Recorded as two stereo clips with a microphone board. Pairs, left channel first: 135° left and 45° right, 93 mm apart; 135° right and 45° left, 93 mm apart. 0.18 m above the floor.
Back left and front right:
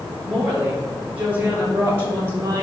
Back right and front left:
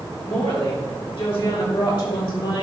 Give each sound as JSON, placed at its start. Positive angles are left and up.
{"t": 0.2, "sound": "a woman speaking", "azimuth_deg": -120, "distance_m": 4.0}